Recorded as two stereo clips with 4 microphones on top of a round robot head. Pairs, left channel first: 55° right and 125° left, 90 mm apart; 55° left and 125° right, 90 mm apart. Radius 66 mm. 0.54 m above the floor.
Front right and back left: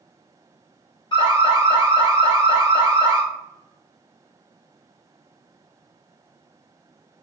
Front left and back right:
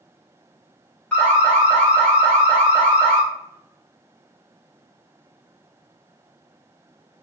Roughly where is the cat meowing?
No cat meowing in this recording.